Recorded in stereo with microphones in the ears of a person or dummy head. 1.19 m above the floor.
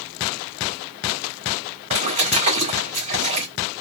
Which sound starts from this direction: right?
A splash, at 1.9 s.